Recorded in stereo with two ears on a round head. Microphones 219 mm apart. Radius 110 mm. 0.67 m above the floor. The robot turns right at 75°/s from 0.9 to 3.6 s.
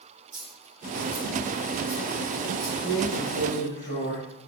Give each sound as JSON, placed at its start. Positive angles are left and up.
{"t": 0.3, "sound": "a dropped coin", "side_deg": -65, "distance_m": 3.0}
{"t": 2.8, "sound": "a drawer", "azimuth_deg": 70, "distance_m": 5.0}